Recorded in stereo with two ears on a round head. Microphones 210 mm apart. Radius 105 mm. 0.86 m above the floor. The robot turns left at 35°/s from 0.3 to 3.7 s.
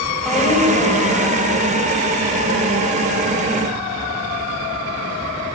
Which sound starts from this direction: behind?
A woman speaking, at 0.2 s.